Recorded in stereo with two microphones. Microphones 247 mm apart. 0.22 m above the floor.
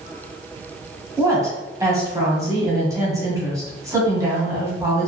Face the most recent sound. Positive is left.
turn(degrees=-15)  # may be behind; listen again after turning